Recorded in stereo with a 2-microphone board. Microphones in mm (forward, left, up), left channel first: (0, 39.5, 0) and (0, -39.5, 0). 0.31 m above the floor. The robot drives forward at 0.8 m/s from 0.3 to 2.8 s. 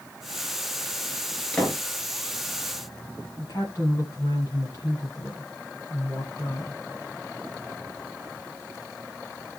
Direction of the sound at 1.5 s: 15° left (ahead or behind).